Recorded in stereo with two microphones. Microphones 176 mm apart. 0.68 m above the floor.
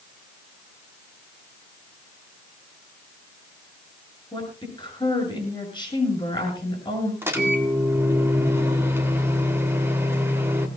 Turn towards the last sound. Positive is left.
turn(degrees=-15)  # may be behind; listen again after turning